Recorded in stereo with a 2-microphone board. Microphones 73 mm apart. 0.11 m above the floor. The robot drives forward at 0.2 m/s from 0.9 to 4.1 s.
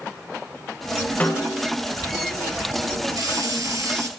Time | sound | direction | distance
1.2 | a snare drum | 25° left (ahead or behind) | 3.5 m
3.2 | a hiss | 55° right (ahead or behind) | 1.0 m